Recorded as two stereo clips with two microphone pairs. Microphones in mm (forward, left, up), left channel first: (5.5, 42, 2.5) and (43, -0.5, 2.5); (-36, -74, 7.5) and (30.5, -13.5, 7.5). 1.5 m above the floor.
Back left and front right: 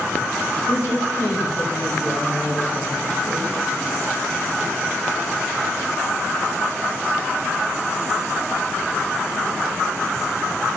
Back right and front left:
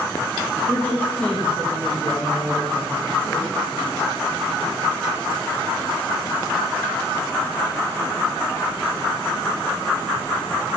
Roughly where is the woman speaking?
Behind left.